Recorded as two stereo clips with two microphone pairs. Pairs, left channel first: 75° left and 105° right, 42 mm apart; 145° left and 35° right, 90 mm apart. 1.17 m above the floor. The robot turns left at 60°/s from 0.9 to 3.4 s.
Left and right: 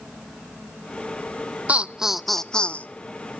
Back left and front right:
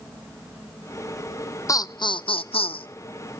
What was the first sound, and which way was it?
Laughter, 165° right.